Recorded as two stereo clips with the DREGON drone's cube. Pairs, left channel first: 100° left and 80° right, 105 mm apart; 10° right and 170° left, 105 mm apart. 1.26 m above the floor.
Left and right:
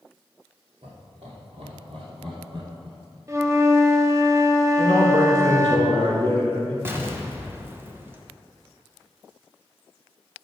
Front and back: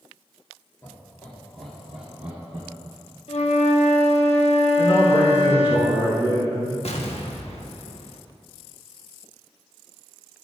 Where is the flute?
15° right, 0.9 m.